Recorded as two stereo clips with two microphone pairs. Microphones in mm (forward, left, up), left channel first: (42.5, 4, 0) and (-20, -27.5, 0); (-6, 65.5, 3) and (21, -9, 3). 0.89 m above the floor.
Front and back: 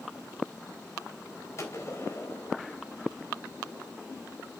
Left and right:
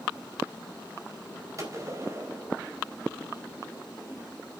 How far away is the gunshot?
About 4 m.